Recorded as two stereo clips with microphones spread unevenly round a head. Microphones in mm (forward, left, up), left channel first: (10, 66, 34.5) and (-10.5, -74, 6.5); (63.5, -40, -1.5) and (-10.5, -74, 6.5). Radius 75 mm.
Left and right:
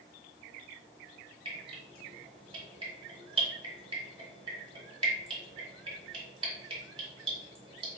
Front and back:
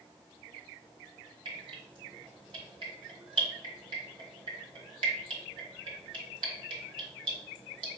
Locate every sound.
1.4 s dripping: 155° right, 1.6 m